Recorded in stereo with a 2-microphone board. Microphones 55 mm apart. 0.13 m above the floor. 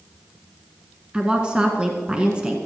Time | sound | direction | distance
1.1 | a woman speaking | 20° right (ahead or behind) | 1.7 m